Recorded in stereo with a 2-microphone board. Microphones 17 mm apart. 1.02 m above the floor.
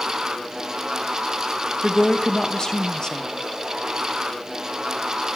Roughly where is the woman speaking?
Left.